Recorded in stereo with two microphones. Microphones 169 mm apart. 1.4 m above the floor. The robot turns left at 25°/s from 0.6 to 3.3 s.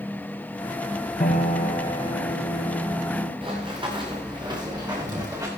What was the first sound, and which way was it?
A piano, 45° left.